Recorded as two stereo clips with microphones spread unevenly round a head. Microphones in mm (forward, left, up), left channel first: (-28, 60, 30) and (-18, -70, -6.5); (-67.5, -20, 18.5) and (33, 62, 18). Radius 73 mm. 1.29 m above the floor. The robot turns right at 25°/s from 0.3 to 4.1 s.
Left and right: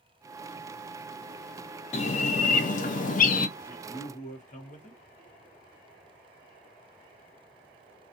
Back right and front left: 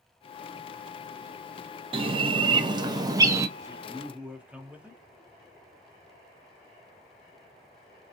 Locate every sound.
1.9 s a bird: 55° left, 0.5 m; by 3.5 s 95° left, 0.5 m
3.6 s a man speaking: 105° left, 1.0 m; by 5.0 s 120° left, 1.0 m